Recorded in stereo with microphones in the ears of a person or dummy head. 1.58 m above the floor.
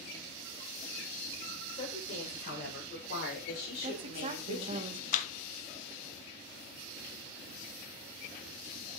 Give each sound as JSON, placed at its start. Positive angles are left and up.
{"t": 1.7, "sound": "a woman speaking", "side_deg": 40, "distance_m": 7.5}
{"t": 3.8, "sound": "a woman speaking", "side_deg": -35, "distance_m": 1.6}
{"t": 5.1, "sound": "a clap", "side_deg": 45, "distance_m": 1.2}